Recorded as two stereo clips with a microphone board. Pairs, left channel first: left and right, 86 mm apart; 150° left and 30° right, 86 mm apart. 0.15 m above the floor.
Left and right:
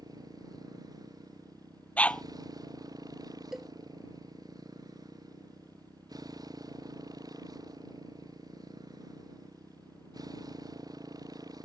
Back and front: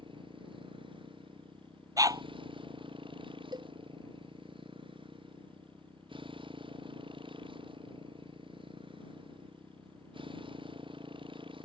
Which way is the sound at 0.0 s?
45° right.